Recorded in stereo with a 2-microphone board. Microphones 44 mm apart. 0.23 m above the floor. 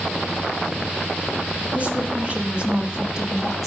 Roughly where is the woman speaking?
Right.